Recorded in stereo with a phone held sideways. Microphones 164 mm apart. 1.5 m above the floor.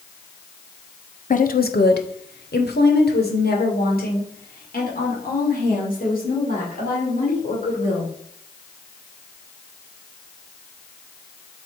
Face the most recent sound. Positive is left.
turn(degrees=55)  # may be behind; listen again after turning